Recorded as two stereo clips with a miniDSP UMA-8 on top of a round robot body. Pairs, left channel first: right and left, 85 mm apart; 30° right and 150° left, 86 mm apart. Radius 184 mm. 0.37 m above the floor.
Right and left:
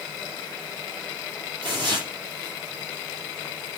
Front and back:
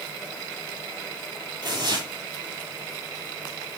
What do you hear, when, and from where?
1.6 s tearing paper: 120° left, 6 m